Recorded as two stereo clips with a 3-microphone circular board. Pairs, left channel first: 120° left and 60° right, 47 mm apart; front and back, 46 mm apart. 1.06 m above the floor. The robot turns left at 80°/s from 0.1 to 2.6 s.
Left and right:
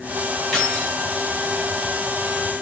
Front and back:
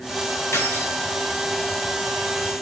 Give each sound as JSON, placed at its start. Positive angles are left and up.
{"t": 0.5, "sound": "keys jangling", "azimuth_deg": 25, "distance_m": 5.5}